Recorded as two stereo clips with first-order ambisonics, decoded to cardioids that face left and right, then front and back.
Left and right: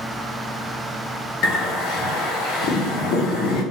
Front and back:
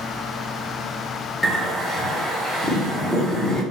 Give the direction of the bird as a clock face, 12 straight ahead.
9 o'clock.